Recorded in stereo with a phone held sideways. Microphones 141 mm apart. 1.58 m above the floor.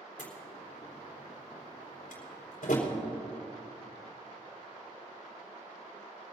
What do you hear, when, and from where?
0.2 s a door slam: 80° left, 3.5 m